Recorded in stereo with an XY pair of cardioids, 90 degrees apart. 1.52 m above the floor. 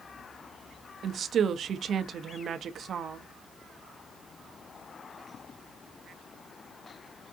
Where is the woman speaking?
60° right, 0.6 m.